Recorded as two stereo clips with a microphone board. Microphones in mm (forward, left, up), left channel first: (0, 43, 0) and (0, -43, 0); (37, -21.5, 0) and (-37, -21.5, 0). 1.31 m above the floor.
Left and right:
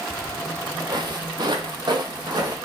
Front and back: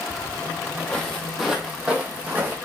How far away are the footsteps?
About 2 m.